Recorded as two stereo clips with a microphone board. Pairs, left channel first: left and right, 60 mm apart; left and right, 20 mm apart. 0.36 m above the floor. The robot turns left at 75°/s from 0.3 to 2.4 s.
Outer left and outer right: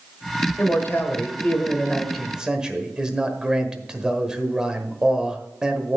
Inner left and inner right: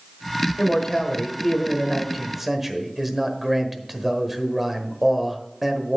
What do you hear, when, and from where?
0.6 s a man speaking: 120° left, 1.3 m; by 6.0 s 15° right, 1.3 m